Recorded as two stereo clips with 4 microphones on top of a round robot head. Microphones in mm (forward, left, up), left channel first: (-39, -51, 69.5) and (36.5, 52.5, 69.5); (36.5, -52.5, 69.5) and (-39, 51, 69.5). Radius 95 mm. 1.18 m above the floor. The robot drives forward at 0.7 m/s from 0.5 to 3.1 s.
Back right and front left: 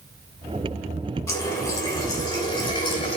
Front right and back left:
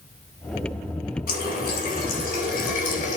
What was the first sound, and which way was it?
A running tap, 55° right.